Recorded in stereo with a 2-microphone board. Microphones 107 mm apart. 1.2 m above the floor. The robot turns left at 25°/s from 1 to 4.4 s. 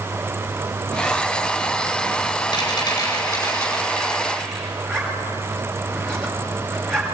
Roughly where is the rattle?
Ahead left.